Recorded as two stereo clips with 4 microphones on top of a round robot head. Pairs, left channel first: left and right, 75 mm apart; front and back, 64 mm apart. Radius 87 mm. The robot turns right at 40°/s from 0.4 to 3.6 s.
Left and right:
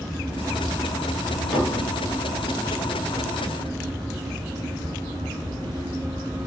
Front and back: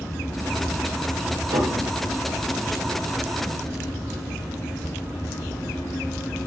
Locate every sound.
1.5 s dishes clattering: 175° right, 1.6 m; by 1.9 s 160° right, 1.6 m